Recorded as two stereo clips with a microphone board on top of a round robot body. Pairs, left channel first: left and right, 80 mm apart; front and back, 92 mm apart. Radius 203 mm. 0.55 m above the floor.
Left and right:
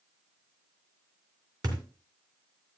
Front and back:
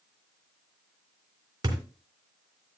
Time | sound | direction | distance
1.6 | a thud | 130° right | 2.5 m